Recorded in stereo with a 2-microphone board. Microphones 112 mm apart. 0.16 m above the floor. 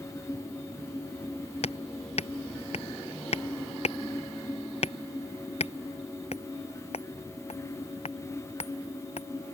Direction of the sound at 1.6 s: 70° left (ahead or behind).